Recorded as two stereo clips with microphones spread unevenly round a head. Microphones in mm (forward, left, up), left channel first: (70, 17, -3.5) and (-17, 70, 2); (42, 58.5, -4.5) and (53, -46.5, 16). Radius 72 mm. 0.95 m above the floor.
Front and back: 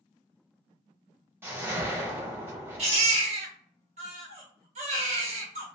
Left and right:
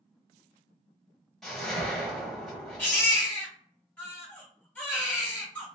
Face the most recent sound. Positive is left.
turn(degrees=180)